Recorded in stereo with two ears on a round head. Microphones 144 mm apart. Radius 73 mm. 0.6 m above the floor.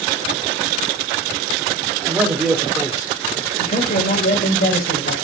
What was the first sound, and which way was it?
A man speaking, 15° right (ahead or behind).